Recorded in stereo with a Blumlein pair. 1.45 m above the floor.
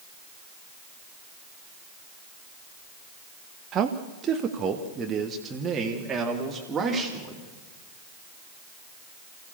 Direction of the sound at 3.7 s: 30° right.